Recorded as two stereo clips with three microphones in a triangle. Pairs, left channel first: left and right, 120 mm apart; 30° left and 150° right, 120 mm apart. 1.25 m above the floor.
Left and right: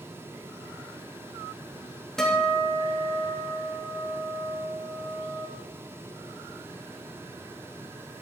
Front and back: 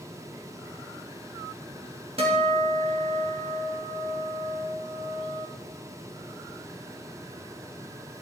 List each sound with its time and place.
2.2 s a guitar: 175° left, 1.6 m